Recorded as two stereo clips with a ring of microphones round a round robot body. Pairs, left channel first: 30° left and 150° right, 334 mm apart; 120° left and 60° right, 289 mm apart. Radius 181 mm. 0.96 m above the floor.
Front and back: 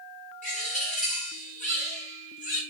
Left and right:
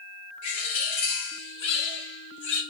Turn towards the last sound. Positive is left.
turn(degrees=100)